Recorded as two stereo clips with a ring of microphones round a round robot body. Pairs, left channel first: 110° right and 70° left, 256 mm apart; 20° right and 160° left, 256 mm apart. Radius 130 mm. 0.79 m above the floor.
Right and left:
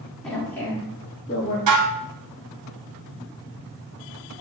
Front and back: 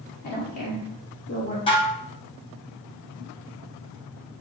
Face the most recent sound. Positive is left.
turn(degrees=50)